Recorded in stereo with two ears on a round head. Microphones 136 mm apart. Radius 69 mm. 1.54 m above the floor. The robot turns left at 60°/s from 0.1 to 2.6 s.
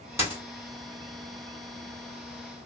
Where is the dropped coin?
15° right (ahead or behind), 1.3 m; by 0.4 s 10° right (ahead or behind), 1.3 m.